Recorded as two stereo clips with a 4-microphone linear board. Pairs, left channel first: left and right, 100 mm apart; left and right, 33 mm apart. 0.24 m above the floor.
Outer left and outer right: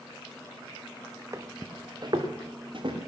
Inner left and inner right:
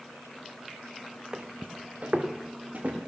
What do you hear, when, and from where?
1.3 s footsteps: 30° right (ahead or behind), 1.2 m; by 3.0 s 55° right (ahead or behind), 3 m